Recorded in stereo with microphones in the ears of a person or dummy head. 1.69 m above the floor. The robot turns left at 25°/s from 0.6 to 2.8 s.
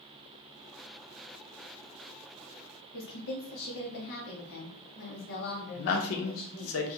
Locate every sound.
2.9 s a woman speaking: 55° left (ahead or behind), 1.0 m
5.8 s a man speaking: 80° left, 0.6 m